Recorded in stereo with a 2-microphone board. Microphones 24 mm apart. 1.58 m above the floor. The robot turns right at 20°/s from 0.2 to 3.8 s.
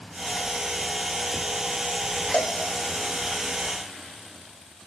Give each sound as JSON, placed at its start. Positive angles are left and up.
{"t": 2.3, "sound": "a cowbell", "side_deg": 70, "distance_m": 0.6}